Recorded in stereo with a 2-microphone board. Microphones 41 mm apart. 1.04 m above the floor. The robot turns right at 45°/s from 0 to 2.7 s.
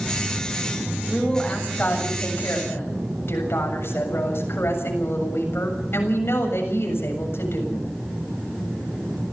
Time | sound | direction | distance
1.1 | a woman speaking | straight ahead | 7 m